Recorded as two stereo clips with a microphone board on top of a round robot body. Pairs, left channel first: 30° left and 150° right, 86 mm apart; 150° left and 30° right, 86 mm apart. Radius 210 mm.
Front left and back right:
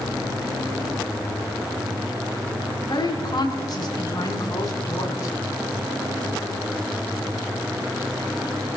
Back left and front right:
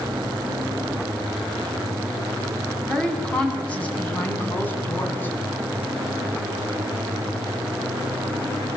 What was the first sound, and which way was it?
A woman speaking, 70° left.